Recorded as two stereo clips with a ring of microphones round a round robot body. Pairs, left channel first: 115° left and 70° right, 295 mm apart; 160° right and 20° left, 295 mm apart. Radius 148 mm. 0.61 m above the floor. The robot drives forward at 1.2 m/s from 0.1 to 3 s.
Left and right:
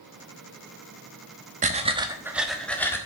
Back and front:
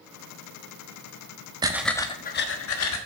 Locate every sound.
1.6 s breathing: 35° right, 1.1 m; by 3.0 s 165° right, 1.6 m